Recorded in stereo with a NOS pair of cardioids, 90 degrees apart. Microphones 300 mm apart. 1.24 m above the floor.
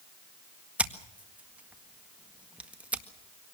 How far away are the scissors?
About 1.7 m.